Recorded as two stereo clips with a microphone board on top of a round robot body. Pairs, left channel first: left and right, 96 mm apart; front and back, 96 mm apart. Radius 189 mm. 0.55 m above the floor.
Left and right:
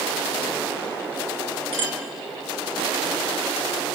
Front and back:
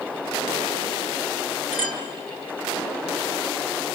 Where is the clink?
110° right, 5 m.